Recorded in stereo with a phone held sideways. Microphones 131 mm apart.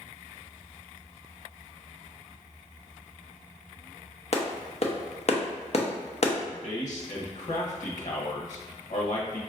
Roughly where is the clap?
Left.